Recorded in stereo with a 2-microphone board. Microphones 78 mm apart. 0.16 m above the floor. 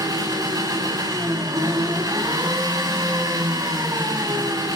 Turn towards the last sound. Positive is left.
turn(degrees=-55)  # may be behind; listen again after turning